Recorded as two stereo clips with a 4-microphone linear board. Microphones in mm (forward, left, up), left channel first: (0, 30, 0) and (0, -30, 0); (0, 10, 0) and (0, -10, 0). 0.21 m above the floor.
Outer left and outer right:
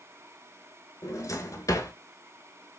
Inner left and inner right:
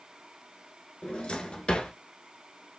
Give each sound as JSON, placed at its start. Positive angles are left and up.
{"t": 1.0, "sound": "a drawer", "side_deg": 65, "distance_m": 1.0}